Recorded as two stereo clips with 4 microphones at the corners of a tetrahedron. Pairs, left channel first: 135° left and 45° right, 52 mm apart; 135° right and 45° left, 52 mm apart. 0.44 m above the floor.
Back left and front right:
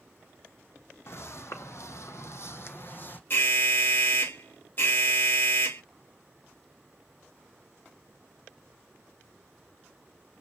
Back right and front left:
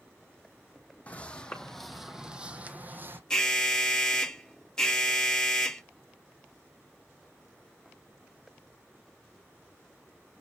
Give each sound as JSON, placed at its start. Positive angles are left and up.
{"t": 1.1, "sound": "footsteps", "azimuth_deg": 165, "distance_m": 1.1}
{"t": 3.3, "sound": "an alarm", "azimuth_deg": 150, "distance_m": 1.0}